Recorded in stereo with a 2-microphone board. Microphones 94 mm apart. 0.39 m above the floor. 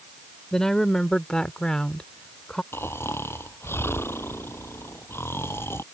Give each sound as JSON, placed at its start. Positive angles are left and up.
{"t": 0.5, "sound": "a woman speaking", "side_deg": 5}
{"t": 2.7, "sound": "snoring", "side_deg": 25}